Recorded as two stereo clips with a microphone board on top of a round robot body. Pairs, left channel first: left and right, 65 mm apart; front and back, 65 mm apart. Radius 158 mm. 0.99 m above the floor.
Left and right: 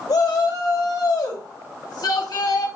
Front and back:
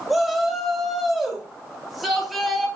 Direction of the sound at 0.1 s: 90° left.